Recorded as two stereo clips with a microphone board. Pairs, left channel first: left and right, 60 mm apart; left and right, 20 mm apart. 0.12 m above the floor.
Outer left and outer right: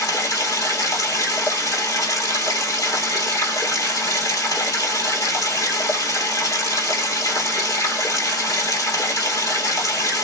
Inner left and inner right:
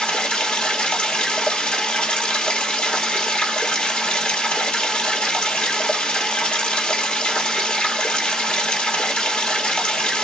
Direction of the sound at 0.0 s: 60° left (ahead or behind).